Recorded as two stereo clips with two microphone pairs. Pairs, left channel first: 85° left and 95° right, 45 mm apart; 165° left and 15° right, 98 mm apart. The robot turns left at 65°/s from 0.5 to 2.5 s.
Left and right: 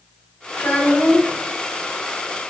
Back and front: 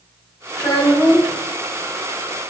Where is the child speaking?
135° left, 1.7 m; by 1.4 s 80° left, 1.7 m.